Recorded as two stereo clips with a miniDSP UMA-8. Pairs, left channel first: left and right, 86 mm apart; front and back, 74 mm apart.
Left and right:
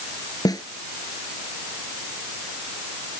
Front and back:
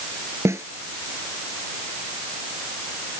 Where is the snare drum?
130° left.